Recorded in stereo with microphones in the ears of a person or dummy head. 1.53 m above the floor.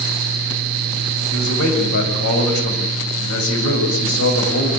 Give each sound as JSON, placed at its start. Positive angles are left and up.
{"t": 1.3, "sound": "a man speaking", "side_deg": 70, "distance_m": 7.0}